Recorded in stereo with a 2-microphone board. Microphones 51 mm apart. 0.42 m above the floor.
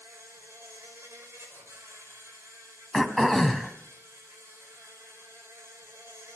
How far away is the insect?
About 5 m.